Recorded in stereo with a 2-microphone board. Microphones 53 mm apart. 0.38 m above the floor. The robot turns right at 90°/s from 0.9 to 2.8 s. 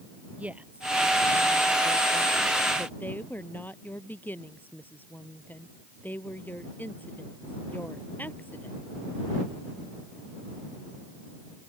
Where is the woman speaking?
25° right (ahead or behind); by 8.8 s 35° left (ahead or behind).